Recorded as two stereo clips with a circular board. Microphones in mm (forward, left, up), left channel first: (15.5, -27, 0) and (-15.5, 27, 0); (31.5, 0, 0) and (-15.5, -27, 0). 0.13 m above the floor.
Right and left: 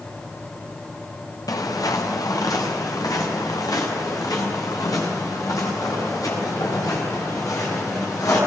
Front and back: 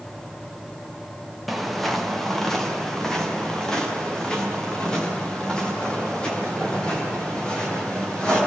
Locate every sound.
1.5 s footsteps: 60° right, 3 m; by 8.4 s 40° right, 12.5 m